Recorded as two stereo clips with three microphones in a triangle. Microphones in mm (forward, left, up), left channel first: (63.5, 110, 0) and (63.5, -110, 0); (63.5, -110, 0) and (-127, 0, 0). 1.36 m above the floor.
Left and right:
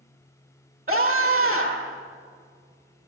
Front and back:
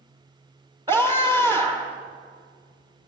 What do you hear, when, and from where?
0.9 s a scream: 135° right, 1.1 m